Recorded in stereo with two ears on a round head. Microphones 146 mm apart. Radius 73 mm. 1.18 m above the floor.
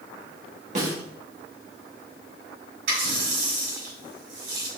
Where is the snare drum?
45° right (ahead or behind), 1.9 m.